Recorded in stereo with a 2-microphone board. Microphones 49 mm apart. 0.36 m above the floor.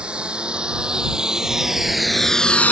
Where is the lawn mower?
20° right (ahead or behind); by 2.7 s 40° left (ahead or behind).